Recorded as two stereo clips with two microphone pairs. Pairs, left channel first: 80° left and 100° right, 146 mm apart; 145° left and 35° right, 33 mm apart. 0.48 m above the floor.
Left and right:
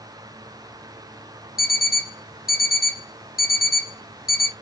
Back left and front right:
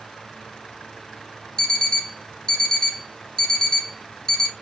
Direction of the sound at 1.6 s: 75° left.